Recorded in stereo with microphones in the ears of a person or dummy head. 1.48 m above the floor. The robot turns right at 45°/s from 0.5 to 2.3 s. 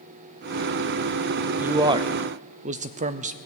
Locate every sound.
1.6 s a man speaking: 10° right (ahead or behind), 0.5 m; by 3.4 s 35° right (ahead or behind), 0.5 m